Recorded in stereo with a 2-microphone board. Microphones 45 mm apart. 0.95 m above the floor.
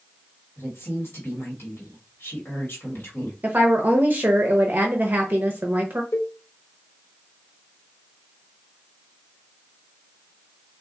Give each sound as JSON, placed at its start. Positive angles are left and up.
{"t": 0.6, "sound": "a woman speaking", "side_deg": 60, "distance_m": 1.4}
{"t": 3.4, "sound": "a woman speaking", "side_deg": -45, "distance_m": 0.6}
{"t": 6.1, "sound": "a cowbell", "side_deg": 70, "distance_m": 1.0}